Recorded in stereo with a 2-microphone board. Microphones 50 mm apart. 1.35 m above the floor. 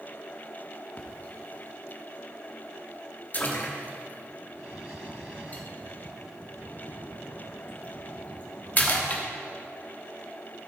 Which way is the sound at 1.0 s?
35° left (ahead or behind).